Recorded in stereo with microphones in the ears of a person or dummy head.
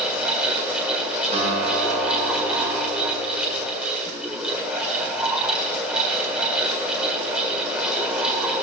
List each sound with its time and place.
0.0 s a fan: 5° right (ahead or behind), 2.0 m
1.3 s a guitar: 40° right (ahead or behind), 5 m